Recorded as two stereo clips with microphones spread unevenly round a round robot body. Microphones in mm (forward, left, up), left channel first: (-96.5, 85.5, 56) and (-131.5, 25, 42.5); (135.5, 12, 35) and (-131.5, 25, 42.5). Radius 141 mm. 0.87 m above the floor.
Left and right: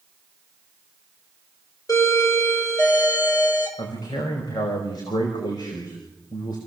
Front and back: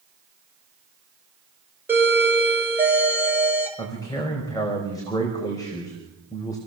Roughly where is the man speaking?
Left.